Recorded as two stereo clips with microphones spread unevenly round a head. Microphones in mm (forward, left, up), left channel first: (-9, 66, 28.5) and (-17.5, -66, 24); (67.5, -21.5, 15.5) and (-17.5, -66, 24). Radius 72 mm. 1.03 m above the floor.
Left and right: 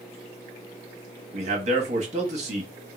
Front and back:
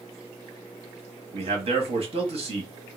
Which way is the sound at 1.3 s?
130° right.